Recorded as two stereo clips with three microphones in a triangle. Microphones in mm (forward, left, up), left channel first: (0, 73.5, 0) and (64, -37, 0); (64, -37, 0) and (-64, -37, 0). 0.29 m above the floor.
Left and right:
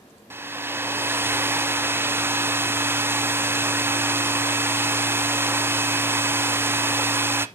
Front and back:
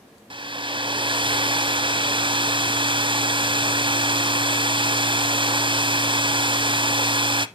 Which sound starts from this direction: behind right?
A hair dryer, at 0.3 s.